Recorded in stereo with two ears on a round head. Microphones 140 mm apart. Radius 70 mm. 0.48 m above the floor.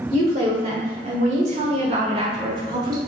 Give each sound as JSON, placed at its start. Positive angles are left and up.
{"t": 0.1, "sound": "a woman speaking", "side_deg": -55, "distance_m": 1.8}